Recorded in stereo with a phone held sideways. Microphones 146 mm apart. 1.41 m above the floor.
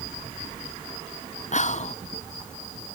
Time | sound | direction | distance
1.5 | whispering | 55° left (ahead or behind) | 0.6 m